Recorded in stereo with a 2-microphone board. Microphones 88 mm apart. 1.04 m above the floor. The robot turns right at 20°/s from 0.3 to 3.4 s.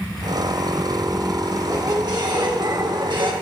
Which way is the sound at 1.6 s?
140° right.